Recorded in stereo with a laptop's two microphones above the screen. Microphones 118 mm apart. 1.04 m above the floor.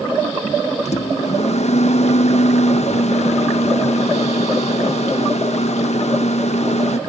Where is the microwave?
70° left (ahead or behind), 0.6 m.